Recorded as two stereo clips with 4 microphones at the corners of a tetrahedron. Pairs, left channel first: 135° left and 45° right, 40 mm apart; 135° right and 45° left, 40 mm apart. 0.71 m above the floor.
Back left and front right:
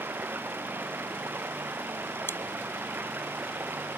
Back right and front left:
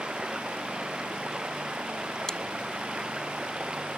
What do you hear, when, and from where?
0.0 s running water: 20° right
2.3 s chewing: 150° left